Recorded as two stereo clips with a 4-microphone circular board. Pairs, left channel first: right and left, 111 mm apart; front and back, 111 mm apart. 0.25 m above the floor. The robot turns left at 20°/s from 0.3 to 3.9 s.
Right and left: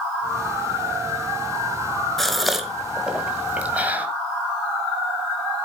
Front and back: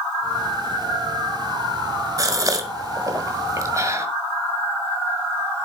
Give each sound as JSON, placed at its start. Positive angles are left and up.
{"t": 2.2, "sound": "a gasp", "azimuth_deg": -175, "distance_m": 1.5}